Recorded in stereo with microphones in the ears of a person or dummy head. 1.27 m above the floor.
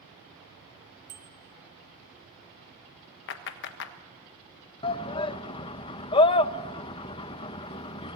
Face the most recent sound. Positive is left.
turn(degrees=25)  # may be behind; listen again after turning